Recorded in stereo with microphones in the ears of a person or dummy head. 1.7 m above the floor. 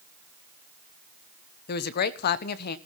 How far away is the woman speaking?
About 1.3 m.